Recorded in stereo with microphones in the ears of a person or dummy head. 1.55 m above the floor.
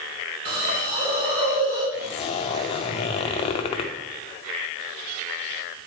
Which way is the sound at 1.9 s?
35° left (ahead or behind).